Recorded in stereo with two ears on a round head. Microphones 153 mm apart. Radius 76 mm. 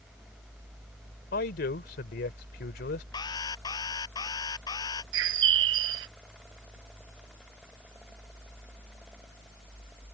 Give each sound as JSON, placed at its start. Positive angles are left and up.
{"t": 1.3, "sound": "a man speaking", "side_deg": 60}
{"t": 3.1, "sound": "an alarm", "side_deg": 25}
{"t": 5.1, "sound": "a bird", "side_deg": -75}